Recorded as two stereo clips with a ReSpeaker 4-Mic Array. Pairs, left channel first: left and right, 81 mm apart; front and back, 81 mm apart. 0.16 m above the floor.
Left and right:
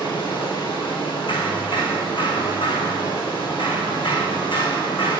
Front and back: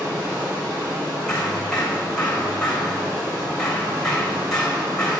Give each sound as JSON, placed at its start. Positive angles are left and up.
{"t": 0.0, "sound": "running water", "azimuth_deg": 115, "distance_m": 4.0}
{"t": 1.3, "sound": "hammering", "azimuth_deg": 85, "distance_m": 3.5}